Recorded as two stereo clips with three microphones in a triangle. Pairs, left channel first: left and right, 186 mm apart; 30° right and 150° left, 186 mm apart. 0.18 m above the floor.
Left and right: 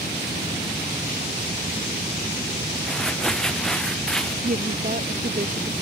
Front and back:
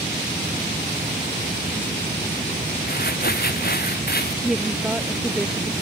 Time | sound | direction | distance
2.9 | crumpling | 5° left | ?
4.4 | a woman speaking | 125° right | ?